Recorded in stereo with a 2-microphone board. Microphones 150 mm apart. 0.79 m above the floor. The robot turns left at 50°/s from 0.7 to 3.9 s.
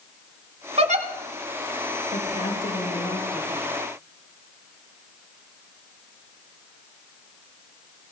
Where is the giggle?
45° right (ahead or behind), 1.2 m; by 1.1 s 55° right (ahead or behind), 1.2 m.